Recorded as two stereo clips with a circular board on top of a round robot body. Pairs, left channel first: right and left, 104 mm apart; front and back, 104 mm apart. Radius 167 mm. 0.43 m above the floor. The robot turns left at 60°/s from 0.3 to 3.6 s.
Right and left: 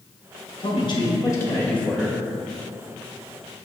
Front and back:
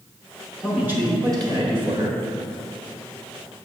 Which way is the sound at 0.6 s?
95° right.